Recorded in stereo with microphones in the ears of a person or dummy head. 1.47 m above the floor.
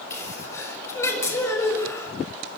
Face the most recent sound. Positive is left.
turn(degrees=20)  # may be behind; listen again after turning